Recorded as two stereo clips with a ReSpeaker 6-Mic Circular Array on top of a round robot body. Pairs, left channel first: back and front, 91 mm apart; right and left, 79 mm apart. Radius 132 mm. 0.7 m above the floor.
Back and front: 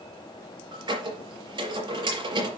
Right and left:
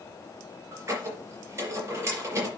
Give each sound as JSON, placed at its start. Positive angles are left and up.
{"t": 0.7, "sound": "a squeak", "azimuth_deg": 30, "distance_m": 5.0}